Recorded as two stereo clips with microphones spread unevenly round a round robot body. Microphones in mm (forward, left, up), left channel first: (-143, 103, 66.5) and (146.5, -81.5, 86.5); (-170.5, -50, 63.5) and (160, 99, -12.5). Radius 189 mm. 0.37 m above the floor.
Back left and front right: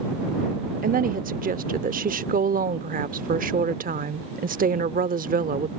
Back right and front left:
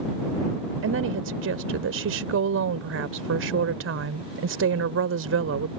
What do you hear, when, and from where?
0.8 s a woman speaking: 25° left